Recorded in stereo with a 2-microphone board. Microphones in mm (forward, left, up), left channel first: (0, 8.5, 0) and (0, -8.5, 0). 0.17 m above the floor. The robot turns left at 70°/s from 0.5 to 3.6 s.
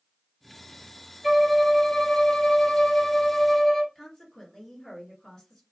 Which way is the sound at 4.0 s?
40° left (ahead or behind).